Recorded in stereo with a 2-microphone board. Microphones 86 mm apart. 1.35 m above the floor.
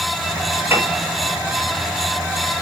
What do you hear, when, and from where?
0.7 s a piano: 30° right (ahead or behind), 6.5 m